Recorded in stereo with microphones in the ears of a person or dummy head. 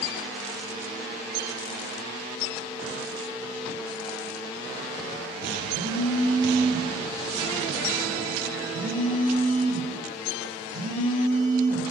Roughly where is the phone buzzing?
Right.